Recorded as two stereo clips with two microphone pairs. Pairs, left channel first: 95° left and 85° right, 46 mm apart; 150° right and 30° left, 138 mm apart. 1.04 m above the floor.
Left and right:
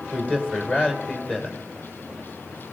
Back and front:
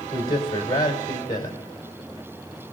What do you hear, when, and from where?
0.1 s a man speaking: 155° left, 3.5 m